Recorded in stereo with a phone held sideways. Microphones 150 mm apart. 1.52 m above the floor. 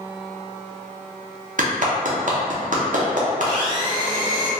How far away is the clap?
About 0.6 m.